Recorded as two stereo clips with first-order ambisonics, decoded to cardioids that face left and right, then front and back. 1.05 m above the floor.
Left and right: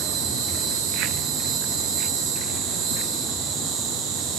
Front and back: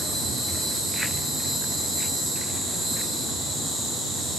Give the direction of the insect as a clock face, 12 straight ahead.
3 o'clock.